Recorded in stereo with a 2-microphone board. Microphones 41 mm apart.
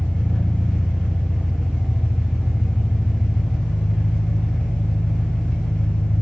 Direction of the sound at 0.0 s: 35° left (ahead or behind).